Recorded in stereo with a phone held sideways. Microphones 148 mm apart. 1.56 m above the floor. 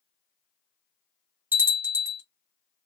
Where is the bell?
15° right (ahead or behind), 1.1 m.